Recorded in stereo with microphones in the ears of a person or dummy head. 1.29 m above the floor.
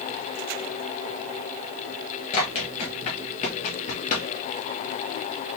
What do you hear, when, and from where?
2.3 s running footsteps: 30° left (ahead or behind), 1.4 m; by 4.3 s 45° left (ahead or behind), 2 m